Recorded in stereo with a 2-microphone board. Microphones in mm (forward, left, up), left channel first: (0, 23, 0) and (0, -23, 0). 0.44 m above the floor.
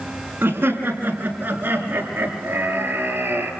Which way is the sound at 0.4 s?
45° right (ahead or behind).